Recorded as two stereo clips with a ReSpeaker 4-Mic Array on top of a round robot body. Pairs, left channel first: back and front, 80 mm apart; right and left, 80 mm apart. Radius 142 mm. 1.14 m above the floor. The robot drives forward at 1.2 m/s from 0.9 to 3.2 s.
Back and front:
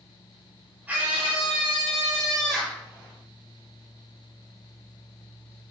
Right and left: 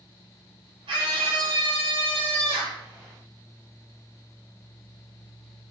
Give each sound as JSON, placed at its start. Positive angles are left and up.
{"t": 0.9, "sound": "a scream", "azimuth_deg": 75, "distance_m": 6.0}